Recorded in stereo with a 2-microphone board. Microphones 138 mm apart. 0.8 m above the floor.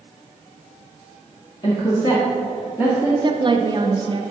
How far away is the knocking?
I don't hear knocking.